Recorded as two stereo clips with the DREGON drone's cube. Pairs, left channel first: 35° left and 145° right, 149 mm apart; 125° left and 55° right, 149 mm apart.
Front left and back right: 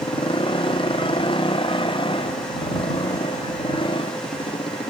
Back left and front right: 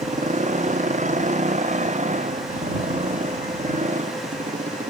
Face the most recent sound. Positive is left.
turn(degrees=-20)